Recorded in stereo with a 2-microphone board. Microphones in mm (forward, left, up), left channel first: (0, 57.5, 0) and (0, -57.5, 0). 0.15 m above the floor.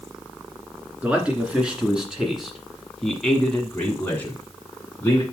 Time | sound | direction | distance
1.0 | a man speaking | 10° right (ahead or behind) | 2 m